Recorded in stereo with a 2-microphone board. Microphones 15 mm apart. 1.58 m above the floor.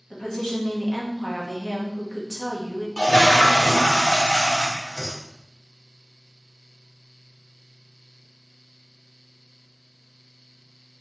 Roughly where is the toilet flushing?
Left.